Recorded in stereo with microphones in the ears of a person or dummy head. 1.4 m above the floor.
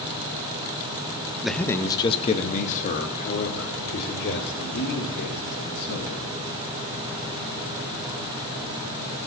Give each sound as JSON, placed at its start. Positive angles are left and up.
{"t": 1.4, "sound": "a man speaking", "side_deg": 0, "distance_m": 0.5}